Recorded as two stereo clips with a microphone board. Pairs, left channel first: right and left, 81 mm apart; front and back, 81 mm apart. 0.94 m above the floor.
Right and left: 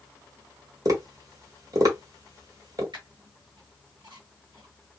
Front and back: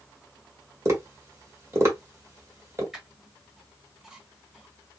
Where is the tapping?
130° left, 1.2 m.